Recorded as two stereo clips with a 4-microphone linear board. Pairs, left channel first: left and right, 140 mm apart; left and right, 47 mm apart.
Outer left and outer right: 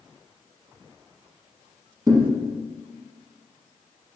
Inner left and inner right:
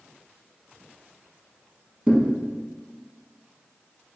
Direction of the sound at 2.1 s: 25° right (ahead or behind).